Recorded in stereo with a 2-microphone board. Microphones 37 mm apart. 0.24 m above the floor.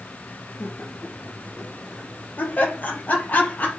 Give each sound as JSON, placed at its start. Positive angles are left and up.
{"t": 0.6, "sound": "laughter", "side_deg": 70, "distance_m": 4.5}